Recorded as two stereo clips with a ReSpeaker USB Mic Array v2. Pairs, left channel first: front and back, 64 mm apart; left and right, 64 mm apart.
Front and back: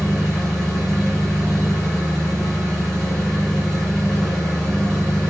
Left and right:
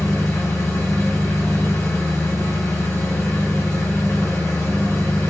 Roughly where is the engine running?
Left.